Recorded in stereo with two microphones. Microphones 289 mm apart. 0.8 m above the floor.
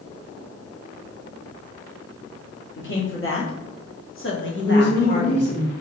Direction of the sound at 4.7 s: 55° left (ahead or behind).